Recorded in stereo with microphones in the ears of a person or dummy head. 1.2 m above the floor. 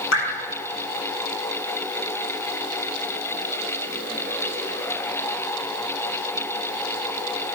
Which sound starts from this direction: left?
Dripping, at 0.1 s.